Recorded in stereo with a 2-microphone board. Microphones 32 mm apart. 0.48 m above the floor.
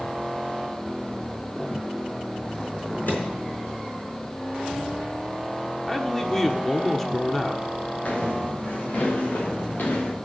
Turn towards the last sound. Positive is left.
turn(degrees=65)  # may be behind; listen again after turning